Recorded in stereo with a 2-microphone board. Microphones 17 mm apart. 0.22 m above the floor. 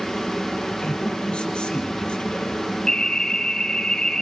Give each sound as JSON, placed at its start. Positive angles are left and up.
{"t": 0.8, "sound": "a man speaking", "side_deg": 75, "distance_m": 6.0}
{"t": 2.9, "sound": "an alarm", "side_deg": 45, "distance_m": 4.0}